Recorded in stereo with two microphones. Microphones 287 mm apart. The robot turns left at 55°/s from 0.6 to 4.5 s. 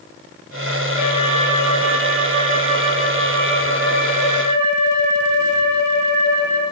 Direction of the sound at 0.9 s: 65° right.